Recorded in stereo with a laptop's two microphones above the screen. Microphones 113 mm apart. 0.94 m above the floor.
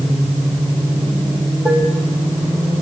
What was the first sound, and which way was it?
Dishes clattering, 20° right (ahead or behind).